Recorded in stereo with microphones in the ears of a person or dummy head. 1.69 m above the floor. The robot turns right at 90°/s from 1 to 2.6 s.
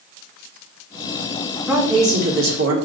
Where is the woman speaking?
175° right, 1.5 m; by 2.8 s 95° right, 1.5 m.